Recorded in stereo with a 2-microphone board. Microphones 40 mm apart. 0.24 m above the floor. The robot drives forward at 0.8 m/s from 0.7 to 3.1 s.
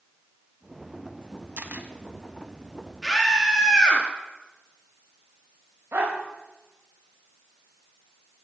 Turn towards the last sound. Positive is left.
turn(degrees=-70)  # may be behind; listen again after turning